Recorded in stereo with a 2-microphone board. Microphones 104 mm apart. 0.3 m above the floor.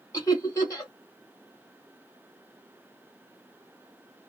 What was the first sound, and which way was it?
Laughter, 30° left (ahead or behind).